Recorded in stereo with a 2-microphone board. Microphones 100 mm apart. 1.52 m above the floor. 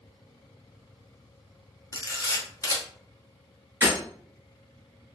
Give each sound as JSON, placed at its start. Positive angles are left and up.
{"t": 1.9, "sound": "a camera shutter", "side_deg": 35, "distance_m": 0.7}
{"t": 3.8, "sound": "breaking glass", "side_deg": -20, "distance_m": 1.5}